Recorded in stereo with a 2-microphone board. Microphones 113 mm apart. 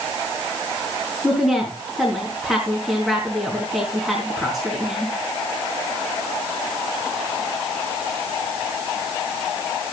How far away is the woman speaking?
About 4 m.